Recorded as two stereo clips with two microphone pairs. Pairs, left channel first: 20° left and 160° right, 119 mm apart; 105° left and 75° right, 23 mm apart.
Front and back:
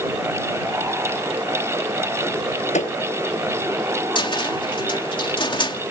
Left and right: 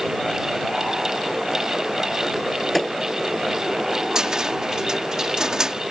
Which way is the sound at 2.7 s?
15° left.